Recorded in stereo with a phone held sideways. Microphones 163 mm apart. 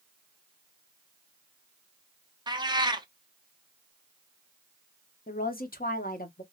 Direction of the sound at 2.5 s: 25° right (ahead or behind).